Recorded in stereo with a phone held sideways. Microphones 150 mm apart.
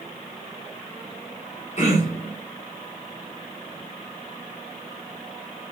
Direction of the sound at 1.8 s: 45° left (ahead or behind).